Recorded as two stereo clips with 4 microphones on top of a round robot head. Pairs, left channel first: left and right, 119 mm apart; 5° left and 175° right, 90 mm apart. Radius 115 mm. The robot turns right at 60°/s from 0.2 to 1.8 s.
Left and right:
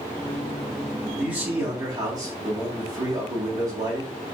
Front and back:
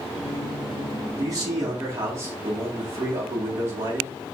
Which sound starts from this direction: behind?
A man speaking, at 1.2 s.